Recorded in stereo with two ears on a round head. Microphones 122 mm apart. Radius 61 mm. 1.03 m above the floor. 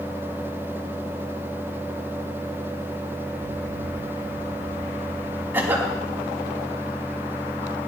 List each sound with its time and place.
3.4 s an explosion: 75° left (ahead or behind), 1.7 m
5.5 s a cough: 15° right (ahead or behind), 3.5 m